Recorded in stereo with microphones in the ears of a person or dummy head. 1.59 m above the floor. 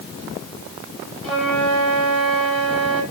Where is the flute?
10° left (ahead or behind), 6.5 m.